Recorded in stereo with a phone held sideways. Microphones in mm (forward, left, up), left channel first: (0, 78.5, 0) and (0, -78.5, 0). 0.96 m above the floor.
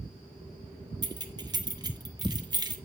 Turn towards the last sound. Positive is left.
turn(degrees=-25)  # may be behind; listen again after turning